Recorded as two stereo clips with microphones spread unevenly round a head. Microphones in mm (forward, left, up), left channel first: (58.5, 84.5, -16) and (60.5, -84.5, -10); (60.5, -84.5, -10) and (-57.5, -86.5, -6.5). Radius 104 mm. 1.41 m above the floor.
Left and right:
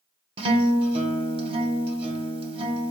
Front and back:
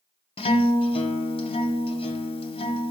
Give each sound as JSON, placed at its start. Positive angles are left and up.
{"t": 0.4, "sound": "a guitar", "azimuth_deg": -35, "distance_m": 0.7}